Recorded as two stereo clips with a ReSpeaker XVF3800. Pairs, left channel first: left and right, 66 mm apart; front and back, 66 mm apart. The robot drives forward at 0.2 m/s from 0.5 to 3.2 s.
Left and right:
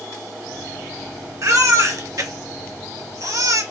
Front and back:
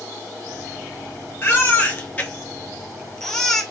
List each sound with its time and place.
1.4 s a baby crying: 55° right, 0.9 m; by 3.6 s 80° right, 0.7 m